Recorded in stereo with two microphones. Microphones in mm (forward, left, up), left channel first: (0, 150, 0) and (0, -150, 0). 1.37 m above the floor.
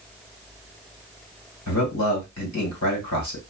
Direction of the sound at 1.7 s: 65° left (ahead or behind).